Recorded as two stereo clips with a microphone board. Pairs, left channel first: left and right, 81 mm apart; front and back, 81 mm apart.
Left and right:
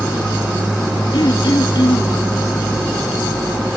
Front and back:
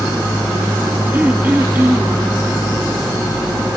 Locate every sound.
1.1 s throat clearing: 115° left, 1.8 m